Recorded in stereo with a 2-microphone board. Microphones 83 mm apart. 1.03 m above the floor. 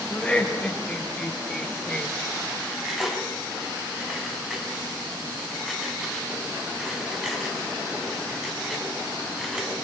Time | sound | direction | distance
0.1 | laughter | 15° left (ahead or behind) | 5 m
2.6 | cutlery clinking | centre (ahead or behind) | 5 m